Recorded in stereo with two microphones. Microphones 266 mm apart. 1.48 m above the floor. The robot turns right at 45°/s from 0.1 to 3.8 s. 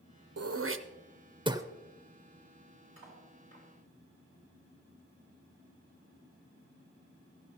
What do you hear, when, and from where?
0.4 s throat clearing: 65° right (ahead or behind), 0.6 m; by 1.6 s 10° right (ahead or behind), 0.6 m
3.0 s cutlery clinking: 60° right (ahead or behind), 5 m; by 3.7 s 30° right (ahead or behind), 5 m